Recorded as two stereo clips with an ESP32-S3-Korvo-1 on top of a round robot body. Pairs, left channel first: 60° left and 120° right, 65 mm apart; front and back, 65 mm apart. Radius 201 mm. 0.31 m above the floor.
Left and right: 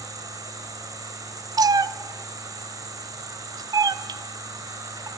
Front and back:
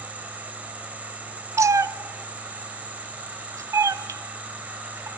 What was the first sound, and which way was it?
An insect, 115° right.